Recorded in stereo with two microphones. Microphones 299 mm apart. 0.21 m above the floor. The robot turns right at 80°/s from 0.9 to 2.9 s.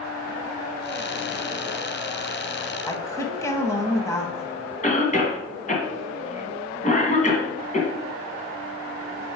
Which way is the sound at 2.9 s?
10° left (ahead or behind).